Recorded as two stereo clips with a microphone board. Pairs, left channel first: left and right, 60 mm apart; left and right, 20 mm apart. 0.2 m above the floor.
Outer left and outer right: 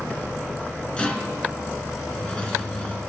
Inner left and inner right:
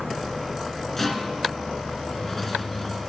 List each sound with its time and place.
1.0 s a rattle: 20° left (ahead or behind), 1.4 m